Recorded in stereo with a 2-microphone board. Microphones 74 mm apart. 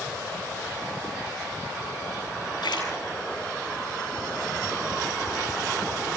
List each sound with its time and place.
2.6 s a splash: 80° left, 8 m